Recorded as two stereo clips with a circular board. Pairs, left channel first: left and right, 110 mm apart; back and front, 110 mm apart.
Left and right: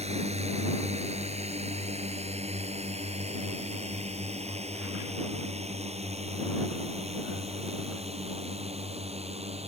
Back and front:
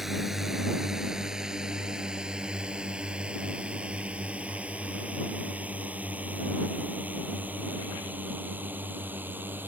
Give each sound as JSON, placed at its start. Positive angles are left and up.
{"t": 0.0, "sound": "a drone", "azimuth_deg": -90}